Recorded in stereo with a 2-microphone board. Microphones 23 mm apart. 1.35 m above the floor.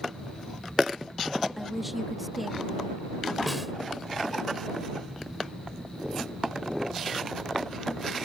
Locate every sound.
1.6 s a woman speaking: 5° right (ahead or behind)
3.5 s a snare drum: centre (ahead or behind)